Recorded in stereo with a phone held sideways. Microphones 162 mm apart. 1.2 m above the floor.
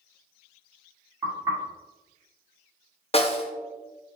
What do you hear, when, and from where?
1.2 s knocking: 20° right (ahead or behind), 2.0 m
3.1 s a snare drum: 40° left (ahead or behind), 0.6 m